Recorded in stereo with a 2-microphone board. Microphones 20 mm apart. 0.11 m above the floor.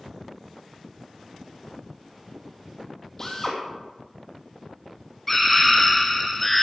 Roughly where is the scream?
Centre.